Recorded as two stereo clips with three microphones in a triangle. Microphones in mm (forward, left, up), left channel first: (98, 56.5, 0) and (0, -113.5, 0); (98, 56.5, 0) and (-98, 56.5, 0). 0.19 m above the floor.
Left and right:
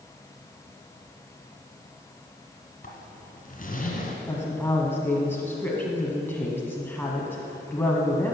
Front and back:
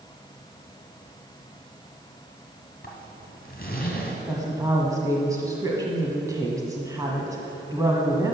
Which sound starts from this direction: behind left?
A woman speaking, at 4.3 s.